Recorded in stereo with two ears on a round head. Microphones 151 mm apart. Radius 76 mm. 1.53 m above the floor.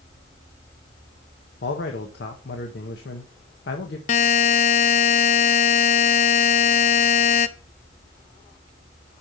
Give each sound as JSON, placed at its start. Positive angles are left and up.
{"t": 1.6, "sound": "a man speaking", "side_deg": 70, "distance_m": 1.4}
{"t": 4.1, "sound": "a buzzer", "side_deg": 40, "distance_m": 0.6}